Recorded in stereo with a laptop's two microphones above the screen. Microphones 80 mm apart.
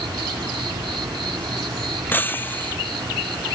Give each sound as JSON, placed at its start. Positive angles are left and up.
{"t": 0.0, "sound": "an insect", "side_deg": -85}
{"t": 2.1, "sound": "breaking glass", "side_deg": 25}